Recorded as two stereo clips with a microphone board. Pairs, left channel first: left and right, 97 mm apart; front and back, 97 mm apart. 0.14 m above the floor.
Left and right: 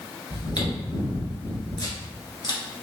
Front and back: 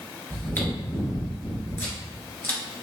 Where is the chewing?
60° left, 1.5 m.